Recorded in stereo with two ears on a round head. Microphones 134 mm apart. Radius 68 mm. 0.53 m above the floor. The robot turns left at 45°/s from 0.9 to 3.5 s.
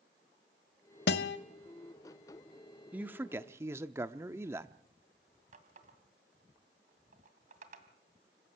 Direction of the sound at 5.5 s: 55° right (ahead or behind).